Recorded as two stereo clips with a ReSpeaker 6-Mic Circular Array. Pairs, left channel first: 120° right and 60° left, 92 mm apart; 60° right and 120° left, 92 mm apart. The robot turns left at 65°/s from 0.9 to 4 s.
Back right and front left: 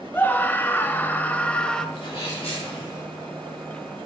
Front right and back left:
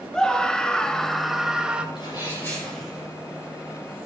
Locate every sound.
0.1 s a scream: 130° right, 0.9 m; by 1.9 s 170° left, 0.9 m
1.9 s a sneeze: 95° right, 6 m; by 3.0 s 165° right, 6 m